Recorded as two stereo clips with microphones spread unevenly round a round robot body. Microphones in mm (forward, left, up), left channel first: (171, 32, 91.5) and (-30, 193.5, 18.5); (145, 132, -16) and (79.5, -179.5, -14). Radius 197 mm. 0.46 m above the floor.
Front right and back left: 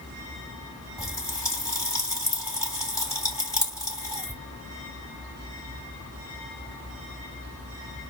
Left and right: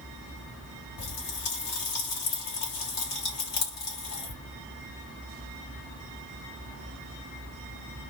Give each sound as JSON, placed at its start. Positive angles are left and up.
{"t": 1.0, "sound": "a pop", "azimuth_deg": 45, "distance_m": 3.0}